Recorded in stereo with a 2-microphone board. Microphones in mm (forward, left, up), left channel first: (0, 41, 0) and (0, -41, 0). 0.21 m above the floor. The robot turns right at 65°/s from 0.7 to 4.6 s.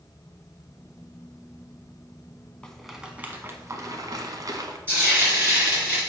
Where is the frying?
25° right (ahead or behind), 3.5 m.